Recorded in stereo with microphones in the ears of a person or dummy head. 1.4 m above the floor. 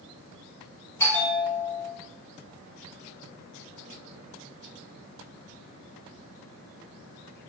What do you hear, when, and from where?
1.0 s a bell: 15° left (ahead or behind), 1.1 m